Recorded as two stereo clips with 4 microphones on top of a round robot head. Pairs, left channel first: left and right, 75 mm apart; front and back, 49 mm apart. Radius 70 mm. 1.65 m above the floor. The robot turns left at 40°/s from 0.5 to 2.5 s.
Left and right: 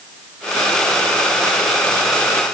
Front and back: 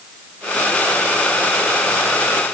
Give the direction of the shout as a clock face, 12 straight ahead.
I don't hear a shout.